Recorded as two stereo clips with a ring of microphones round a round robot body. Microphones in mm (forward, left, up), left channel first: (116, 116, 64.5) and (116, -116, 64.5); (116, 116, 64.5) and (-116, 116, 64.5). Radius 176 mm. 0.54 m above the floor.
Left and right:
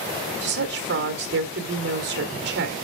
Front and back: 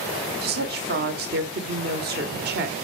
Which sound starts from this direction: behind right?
A woman speaking, at 0.4 s.